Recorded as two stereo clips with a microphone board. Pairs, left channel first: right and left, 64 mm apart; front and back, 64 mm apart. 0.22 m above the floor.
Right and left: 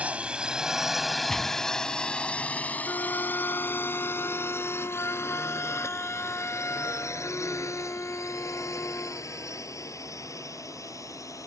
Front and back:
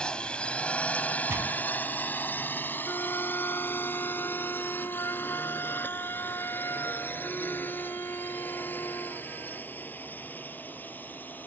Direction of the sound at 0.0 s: 55° left.